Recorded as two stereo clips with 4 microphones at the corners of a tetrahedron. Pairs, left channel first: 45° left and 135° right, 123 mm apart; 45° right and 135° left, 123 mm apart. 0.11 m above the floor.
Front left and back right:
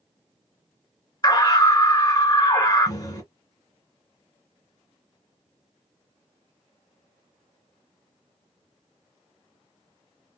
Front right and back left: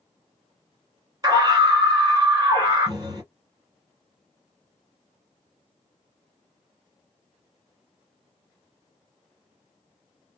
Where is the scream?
90° left, 1.9 m.